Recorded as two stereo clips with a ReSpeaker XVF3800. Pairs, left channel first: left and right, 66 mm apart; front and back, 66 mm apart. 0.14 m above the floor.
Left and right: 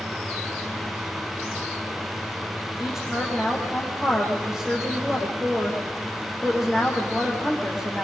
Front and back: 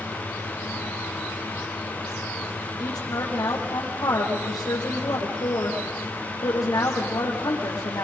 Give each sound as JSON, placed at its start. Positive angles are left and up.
{"t": 2.8, "sound": "a woman speaking", "azimuth_deg": -10, "distance_m": 6.5}